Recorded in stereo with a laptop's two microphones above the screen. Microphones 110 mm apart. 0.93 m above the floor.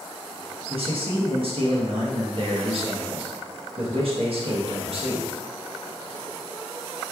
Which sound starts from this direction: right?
A man speaking, at 0.7 s.